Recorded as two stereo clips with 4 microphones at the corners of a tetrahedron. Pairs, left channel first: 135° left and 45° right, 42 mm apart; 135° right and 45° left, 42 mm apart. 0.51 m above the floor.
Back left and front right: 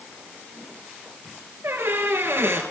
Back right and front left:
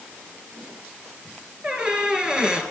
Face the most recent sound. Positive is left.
turn(degrees=-30)